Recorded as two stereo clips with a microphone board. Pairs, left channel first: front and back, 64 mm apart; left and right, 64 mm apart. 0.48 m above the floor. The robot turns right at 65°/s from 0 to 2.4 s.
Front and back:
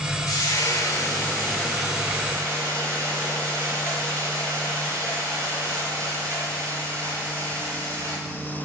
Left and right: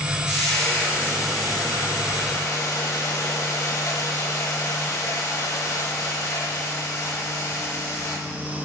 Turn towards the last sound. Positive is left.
turn(degrees=125)